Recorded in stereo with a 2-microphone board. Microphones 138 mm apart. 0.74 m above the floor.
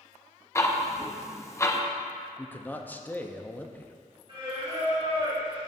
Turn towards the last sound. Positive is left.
turn(degrees=-40)  # may be behind; listen again after turning